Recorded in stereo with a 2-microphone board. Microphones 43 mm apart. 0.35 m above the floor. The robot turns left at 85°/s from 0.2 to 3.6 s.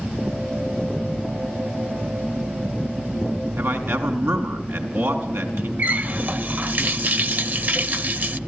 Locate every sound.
3.6 s a man speaking: 70° right (ahead or behind), 4.5 m
5.8 s a running tap: 40° right (ahead or behind), 0.7 m